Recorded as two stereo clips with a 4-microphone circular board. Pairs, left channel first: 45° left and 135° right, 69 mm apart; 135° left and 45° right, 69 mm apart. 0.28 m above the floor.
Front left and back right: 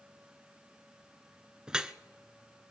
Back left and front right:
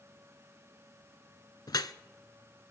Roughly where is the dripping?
Behind left.